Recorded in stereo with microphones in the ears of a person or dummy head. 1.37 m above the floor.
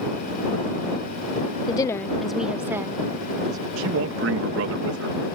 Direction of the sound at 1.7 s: 30° left (ahead or behind).